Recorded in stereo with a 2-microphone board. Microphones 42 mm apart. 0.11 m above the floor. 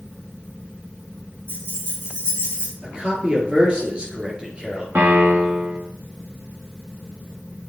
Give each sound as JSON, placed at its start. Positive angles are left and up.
{"t": 1.5, "sound": "keys jangling", "side_deg": -60, "distance_m": 3.0}
{"t": 2.8, "sound": "a man speaking", "side_deg": -25, "distance_m": 2.0}
{"t": 5.0, "sound": "a piano", "side_deg": -60, "distance_m": 2.5}